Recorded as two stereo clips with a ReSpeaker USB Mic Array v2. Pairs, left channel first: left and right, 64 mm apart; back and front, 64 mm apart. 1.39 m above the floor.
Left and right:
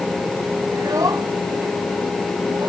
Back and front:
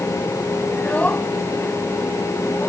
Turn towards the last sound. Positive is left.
turn(degrees=-120)